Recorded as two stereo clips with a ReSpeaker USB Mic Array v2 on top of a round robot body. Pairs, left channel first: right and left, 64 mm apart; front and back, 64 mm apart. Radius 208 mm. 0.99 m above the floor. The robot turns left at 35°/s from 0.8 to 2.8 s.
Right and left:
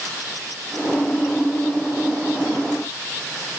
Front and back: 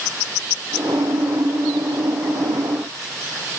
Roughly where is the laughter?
I don't hear laughter.